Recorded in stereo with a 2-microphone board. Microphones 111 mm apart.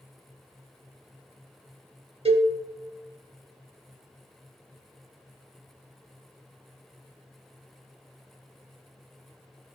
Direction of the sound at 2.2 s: 60° right (ahead or behind).